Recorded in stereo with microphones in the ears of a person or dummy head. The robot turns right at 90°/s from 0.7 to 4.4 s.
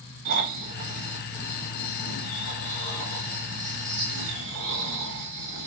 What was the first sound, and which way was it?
Snoring, 50° right.